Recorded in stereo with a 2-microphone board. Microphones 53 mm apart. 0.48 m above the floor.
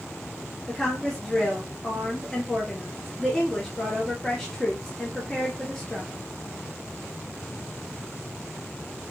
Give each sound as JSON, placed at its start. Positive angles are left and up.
{"t": 0.7, "sound": "a woman speaking", "side_deg": 10, "distance_m": 1.2}